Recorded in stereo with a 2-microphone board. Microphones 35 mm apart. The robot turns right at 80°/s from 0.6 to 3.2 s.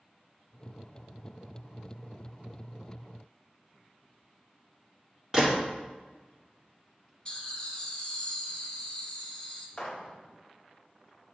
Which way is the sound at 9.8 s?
25° left (ahead or behind).